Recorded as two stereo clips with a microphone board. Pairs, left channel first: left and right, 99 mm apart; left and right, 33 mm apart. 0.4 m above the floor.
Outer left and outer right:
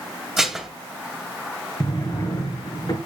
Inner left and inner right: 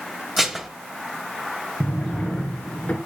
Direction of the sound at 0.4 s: 5° right (ahead or behind).